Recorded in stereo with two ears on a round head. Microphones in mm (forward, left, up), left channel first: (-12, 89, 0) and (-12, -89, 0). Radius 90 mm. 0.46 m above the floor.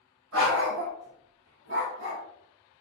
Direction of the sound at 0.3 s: 85° right.